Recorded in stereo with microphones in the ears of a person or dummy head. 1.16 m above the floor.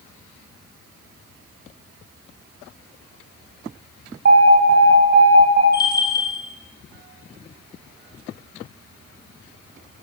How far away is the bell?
About 2.0 m.